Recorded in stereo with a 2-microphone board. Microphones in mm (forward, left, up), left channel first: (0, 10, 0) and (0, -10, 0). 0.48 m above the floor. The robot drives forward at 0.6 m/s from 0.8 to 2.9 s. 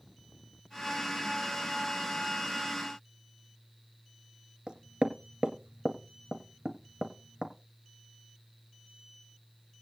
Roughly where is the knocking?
Right.